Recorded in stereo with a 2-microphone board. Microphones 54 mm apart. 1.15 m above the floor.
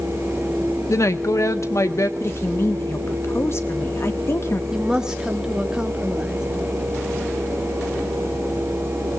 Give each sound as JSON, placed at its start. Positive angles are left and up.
{"t": 0.9, "sound": "a woman speaking", "side_deg": 70, "distance_m": 1.6}
{"t": 2.2, "sound": "a woman speaking", "side_deg": 50, "distance_m": 2.0}
{"t": 4.7, "sound": "a woman speaking", "side_deg": -10, "distance_m": 2.5}